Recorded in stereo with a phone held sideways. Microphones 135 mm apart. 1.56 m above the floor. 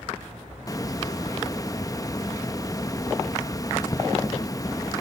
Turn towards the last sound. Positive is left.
turn(degrees=25)  # may be behind; listen again after turning